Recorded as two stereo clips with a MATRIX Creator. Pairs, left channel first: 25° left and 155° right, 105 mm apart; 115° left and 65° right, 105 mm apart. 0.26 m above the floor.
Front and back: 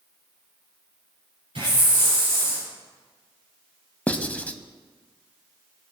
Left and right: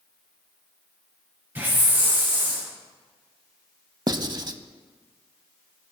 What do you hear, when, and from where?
1.6 s a hiss: 135° right, 6 m
4.1 s writing: 45° right, 0.6 m